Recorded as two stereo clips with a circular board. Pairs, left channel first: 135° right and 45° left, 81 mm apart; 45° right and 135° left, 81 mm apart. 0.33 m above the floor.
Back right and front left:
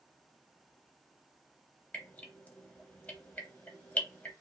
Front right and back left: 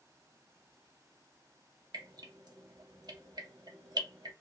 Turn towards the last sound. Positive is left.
turn(degrees=155)